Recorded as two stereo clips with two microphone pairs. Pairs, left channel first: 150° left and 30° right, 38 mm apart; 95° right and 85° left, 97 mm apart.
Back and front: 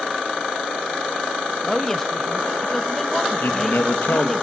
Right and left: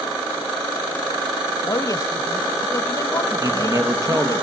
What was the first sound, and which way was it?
A woman speaking, 135° right.